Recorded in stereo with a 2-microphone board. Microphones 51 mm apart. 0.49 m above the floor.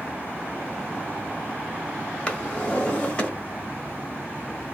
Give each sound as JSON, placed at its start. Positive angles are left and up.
{"t": 2.3, "sound": "a drawer", "side_deg": 20, "distance_m": 1.2}